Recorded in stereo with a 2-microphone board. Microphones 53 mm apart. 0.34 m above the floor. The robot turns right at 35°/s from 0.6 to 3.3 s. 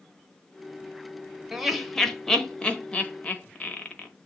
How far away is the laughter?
About 1.0 m.